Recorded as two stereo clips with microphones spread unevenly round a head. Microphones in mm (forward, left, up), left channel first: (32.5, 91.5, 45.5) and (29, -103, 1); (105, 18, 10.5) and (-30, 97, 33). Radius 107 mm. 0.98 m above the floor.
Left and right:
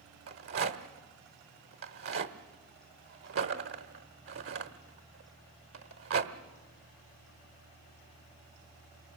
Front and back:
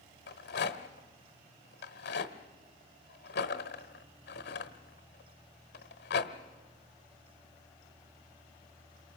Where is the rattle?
70° right, 1.2 m.